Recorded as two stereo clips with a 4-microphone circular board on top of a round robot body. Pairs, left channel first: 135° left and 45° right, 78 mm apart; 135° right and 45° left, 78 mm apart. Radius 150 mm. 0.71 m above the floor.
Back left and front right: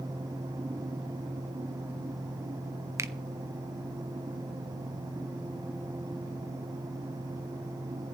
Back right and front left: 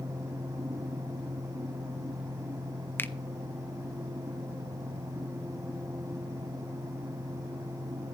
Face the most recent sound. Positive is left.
turn(degrees=-80)